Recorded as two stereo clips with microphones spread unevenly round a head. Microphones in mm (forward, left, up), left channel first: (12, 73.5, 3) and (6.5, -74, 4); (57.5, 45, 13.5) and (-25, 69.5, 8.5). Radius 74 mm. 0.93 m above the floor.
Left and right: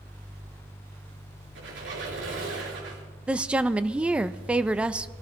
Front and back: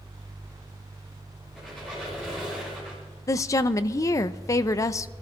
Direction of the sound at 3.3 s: 15° right.